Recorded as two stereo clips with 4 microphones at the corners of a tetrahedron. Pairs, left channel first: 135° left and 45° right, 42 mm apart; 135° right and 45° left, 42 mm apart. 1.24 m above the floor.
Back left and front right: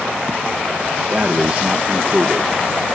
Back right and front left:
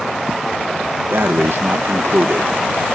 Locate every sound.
1.1 s breathing: 15° left